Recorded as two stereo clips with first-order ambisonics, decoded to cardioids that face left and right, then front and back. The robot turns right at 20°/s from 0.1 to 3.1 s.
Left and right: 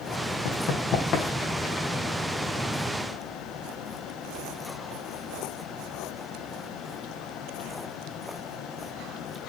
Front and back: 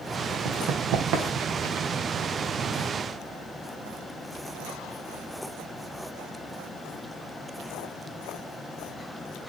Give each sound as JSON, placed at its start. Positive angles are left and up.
{"t": 0.5, "sound": "running footsteps", "azimuth_deg": 125, "distance_m": 3.5}